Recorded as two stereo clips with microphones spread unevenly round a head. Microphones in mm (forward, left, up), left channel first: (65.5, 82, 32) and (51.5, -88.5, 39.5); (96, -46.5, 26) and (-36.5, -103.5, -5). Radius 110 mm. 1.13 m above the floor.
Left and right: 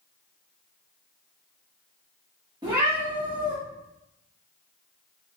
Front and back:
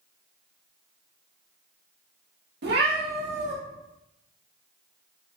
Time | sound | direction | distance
2.6 | a cat meowing | 165° right | 1.0 m